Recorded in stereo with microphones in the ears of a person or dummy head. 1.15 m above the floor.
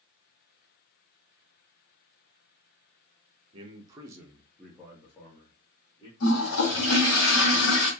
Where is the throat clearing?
No throat clearing in this recording.